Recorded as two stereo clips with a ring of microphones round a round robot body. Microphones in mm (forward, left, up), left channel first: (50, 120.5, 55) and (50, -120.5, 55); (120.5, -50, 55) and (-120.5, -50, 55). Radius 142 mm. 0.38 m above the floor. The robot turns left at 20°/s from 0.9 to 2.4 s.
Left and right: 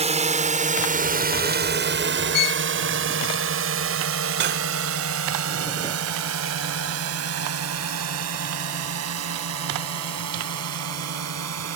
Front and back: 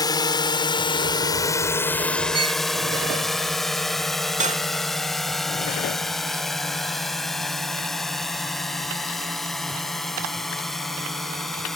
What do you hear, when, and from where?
0.0 s a drone: 60° right; by 11.8 s 90° right
2.3 s a violin: 110° left; by 2.6 s 105° left
4.4 s cutlery clinking: 125° right